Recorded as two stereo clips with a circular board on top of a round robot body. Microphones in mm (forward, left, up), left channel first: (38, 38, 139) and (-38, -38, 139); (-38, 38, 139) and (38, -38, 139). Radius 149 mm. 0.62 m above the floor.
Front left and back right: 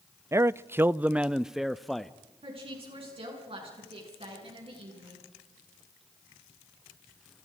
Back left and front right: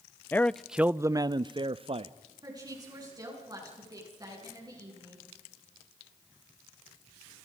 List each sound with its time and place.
0.3 s a man speaking: 170° right, 0.6 m; by 2.1 s 45° right, 0.9 m
2.4 s a woman speaking: 100° right, 8 m